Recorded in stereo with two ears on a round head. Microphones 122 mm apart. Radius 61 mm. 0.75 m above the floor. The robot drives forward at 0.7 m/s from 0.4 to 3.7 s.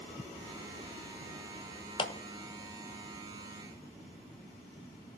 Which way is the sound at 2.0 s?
35° left (ahead or behind).